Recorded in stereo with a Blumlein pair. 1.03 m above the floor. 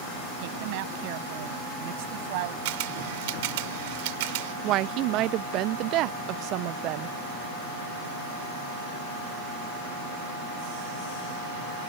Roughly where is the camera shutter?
Ahead right.